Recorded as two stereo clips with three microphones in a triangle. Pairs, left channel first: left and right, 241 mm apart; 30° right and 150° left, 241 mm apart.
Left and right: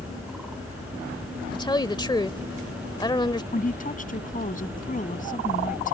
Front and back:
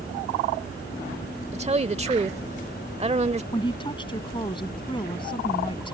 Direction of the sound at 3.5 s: 40° left.